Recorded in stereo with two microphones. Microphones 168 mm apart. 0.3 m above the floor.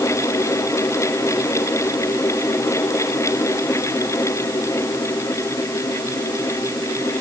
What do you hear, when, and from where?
Only background noise.